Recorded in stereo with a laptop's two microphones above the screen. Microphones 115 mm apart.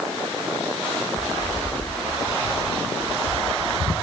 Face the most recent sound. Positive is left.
turn(degrees=0)  # may be behind; listen again after turning